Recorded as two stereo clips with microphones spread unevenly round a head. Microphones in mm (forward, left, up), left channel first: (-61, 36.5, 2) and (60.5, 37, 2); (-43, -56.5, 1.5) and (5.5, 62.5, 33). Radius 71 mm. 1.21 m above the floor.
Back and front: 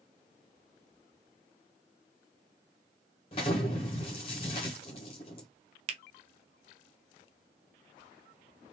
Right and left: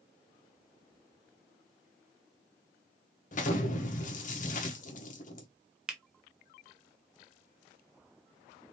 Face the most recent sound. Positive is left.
turn(degrees=-25)